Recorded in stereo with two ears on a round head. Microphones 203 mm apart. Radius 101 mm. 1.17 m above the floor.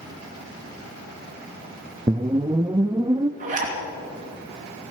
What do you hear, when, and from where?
2.1 s a whoosh: 20° right (ahead or behind), 0.5 m
3.4 s a zipper: 35° right (ahead or behind), 3 m